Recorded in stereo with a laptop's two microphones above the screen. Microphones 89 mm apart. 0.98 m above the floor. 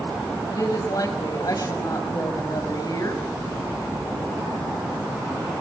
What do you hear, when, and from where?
0.5 s a woman speaking: 45° left (ahead or behind), 5.5 m